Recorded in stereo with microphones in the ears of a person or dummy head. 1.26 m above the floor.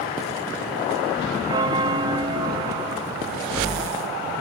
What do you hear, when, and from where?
1.5 s a bell: 20° right (ahead or behind)